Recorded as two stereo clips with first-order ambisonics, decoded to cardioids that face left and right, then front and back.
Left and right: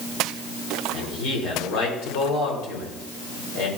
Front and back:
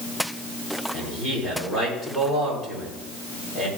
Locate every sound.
0.9 s a man speaking: 85° left, 3.5 m